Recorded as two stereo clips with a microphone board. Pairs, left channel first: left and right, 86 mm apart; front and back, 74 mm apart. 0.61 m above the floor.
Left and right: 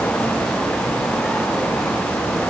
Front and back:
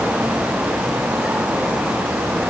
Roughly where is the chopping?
I don't hear chopping.